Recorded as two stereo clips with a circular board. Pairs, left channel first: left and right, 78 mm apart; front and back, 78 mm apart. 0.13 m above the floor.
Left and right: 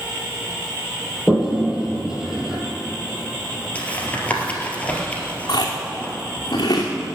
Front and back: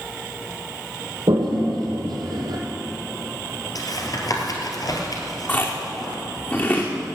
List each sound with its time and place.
1.3 s a toilet flushing: 170° right, 2.5 m
3.8 s tapping: 20° left, 2.5 m
5.5 s chewing: 60° left, 2.5 m